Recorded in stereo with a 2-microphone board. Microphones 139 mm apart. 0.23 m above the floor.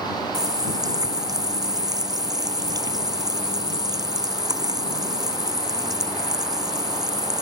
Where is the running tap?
25° right (ahead or behind).